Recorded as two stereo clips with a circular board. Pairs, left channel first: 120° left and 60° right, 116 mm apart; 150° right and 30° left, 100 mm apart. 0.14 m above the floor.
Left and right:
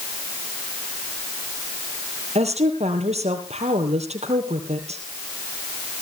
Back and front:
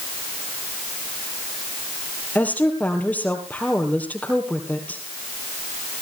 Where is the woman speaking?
75° right, 3 m.